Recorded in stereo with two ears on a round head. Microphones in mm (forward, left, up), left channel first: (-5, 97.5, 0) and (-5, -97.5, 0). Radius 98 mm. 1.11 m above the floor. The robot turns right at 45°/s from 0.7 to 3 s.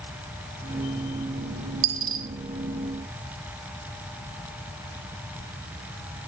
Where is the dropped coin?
60° right (ahead or behind), 0.7 m.